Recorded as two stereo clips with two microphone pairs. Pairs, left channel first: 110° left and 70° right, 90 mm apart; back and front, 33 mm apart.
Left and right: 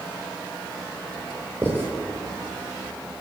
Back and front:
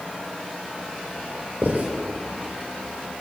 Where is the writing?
5° right, 6.5 m.